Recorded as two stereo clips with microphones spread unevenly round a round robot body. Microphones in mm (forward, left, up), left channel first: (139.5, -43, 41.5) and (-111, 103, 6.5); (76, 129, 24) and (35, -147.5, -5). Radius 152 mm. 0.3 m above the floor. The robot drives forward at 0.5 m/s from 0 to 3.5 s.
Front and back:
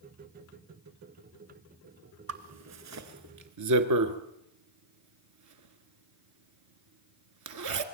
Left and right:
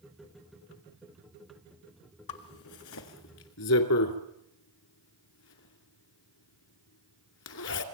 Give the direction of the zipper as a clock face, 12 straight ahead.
8 o'clock.